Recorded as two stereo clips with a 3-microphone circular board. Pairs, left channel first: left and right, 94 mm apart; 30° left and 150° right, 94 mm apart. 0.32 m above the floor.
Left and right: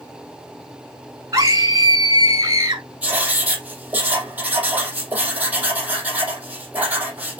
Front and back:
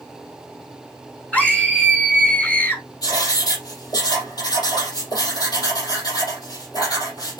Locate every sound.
1.3 s a scream: 45° right, 3.5 m
3.0 s writing: 15° right, 4.5 m